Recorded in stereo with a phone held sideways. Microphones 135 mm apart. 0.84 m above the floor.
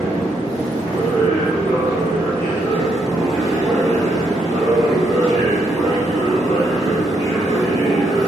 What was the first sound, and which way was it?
A machine running, 20° right (ahead or behind).